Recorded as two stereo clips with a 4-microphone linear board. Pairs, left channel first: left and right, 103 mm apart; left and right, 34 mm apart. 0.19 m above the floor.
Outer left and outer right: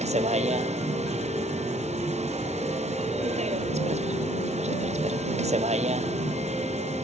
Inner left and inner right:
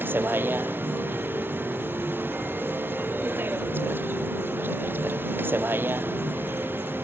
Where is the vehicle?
80° right.